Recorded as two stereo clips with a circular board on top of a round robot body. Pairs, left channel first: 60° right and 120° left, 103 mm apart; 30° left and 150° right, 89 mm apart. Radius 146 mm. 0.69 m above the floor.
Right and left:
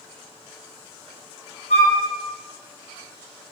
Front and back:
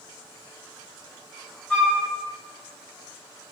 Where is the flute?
50° right, 1.5 m.